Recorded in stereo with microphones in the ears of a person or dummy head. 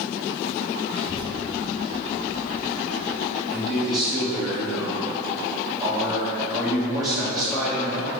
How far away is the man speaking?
About 1.4 m.